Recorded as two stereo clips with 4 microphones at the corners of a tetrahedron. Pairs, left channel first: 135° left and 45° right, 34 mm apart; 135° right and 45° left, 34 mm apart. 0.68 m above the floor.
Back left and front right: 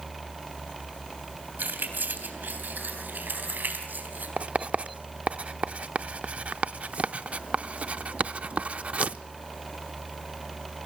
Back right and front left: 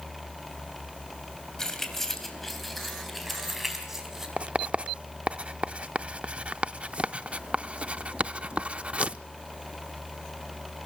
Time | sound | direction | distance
1.6 | keys jangling | 60° right | 3 m
4.4 | writing | 5° right | 0.5 m